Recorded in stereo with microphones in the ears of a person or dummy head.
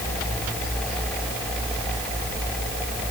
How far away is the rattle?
No rattle in this recording.